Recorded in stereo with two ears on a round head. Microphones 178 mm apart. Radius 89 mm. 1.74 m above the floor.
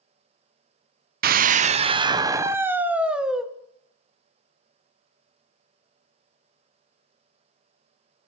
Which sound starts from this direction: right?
A scream, at 1.2 s.